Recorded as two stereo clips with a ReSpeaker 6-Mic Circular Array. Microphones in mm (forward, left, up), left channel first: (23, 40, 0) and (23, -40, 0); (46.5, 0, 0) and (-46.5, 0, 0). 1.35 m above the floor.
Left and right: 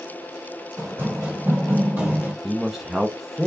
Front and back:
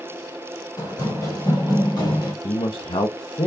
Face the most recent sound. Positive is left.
turn(degrees=-5)